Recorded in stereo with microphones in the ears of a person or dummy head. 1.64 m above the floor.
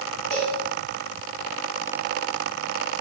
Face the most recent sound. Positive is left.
turn(degrees=60)  # may be behind; listen again after turning